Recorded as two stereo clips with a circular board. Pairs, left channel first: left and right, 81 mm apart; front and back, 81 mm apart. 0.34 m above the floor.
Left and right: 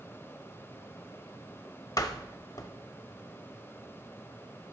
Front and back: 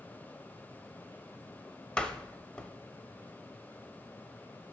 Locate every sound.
2.0 s a door slam: 75° left, 0.8 m